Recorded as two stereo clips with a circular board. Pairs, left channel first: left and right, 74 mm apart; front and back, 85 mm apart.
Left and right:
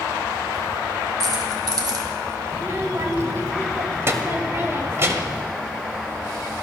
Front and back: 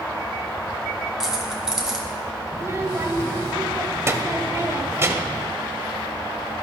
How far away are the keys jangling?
About 1.4 m.